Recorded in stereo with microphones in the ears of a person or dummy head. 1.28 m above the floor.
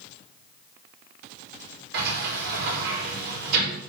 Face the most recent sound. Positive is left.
turn(degrees=-60)  # may be behind; listen again after turning